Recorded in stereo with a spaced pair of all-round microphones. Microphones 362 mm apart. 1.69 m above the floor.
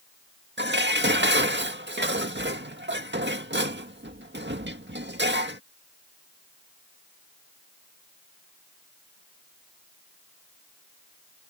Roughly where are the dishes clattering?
Right.